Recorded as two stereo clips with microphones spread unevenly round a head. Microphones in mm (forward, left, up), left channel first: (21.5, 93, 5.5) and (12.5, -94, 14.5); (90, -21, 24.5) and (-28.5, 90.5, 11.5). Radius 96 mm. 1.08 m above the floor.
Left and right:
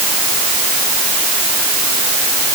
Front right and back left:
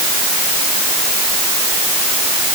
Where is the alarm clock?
No alarm clock in this recording.